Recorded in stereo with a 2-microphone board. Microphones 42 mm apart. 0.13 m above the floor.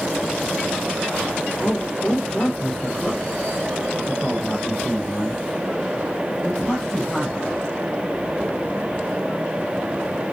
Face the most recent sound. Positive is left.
turn(degrees=5)  # may be behind; listen again after turning